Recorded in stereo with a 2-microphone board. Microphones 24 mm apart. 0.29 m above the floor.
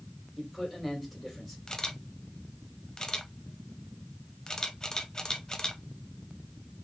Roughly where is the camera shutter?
Left.